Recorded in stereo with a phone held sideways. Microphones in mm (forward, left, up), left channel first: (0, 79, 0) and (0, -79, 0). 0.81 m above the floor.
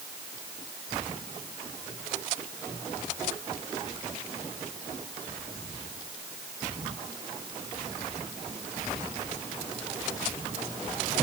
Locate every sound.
Only background noise.